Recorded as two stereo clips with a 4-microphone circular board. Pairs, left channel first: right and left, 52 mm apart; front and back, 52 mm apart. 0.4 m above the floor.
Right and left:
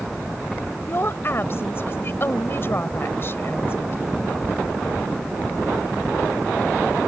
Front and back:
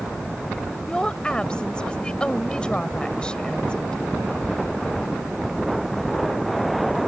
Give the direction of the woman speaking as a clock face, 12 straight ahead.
2 o'clock.